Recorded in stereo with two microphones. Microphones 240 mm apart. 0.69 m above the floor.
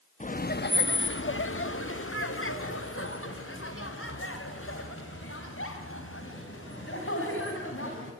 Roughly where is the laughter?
Left.